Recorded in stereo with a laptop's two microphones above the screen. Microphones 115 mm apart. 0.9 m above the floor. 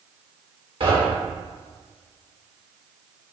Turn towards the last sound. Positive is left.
turn(degrees=-55)  # may be behind; listen again after turning